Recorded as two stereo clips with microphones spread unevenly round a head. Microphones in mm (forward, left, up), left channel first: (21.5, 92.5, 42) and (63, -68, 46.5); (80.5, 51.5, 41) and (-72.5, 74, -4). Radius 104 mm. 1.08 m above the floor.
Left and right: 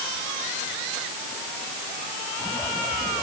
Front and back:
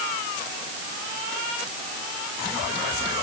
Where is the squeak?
I don't hear a squeak.